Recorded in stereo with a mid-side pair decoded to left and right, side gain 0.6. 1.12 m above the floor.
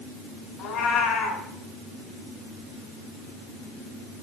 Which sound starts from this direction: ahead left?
A cat meowing, at 0.6 s.